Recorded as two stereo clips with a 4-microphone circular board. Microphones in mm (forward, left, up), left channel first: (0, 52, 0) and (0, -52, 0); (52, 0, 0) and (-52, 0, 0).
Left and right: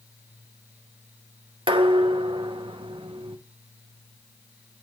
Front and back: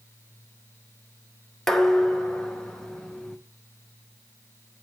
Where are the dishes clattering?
85° right, 0.8 m.